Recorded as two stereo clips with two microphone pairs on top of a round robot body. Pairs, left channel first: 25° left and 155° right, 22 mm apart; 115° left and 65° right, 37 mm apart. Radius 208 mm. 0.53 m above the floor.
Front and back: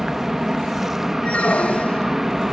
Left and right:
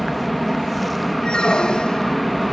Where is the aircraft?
155° right.